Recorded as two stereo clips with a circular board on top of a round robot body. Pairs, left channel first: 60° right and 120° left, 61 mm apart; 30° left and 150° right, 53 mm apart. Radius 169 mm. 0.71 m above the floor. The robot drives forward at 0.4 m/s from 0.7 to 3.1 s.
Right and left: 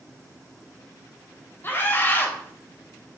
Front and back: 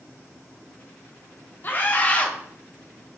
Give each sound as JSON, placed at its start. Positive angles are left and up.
{"t": 1.6, "sound": "a scream", "azimuth_deg": -15, "distance_m": 0.9}